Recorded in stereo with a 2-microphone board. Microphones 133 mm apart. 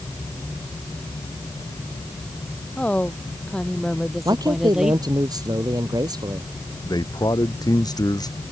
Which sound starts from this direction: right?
A man speaking, at 4.2 s.